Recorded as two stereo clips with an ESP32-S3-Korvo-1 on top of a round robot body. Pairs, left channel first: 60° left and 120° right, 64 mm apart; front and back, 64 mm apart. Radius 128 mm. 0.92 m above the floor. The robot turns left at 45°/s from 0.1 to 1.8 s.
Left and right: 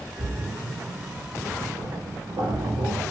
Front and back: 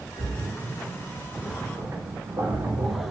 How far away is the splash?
About 1.3 m.